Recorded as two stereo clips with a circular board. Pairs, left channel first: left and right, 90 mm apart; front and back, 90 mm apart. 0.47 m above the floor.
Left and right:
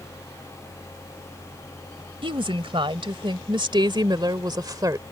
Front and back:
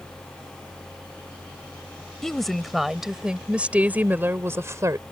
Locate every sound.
2.2 s a woman speaking: 85° right; by 5.0 s 135° right